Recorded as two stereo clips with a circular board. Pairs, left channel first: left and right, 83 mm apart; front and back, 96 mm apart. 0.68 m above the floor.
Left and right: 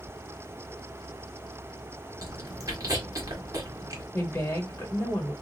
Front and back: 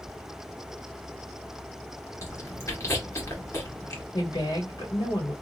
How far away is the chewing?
About 1.9 m.